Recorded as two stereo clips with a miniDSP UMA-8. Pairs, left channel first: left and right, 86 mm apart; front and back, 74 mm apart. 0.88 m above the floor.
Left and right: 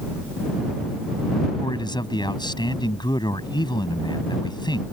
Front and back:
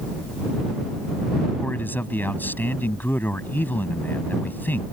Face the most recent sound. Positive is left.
turn(degrees=60)